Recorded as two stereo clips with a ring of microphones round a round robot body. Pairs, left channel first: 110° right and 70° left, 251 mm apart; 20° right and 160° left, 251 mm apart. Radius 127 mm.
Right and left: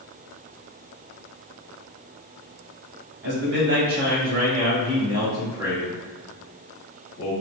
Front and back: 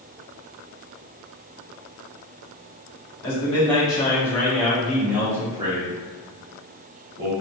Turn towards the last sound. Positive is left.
turn(degrees=-175)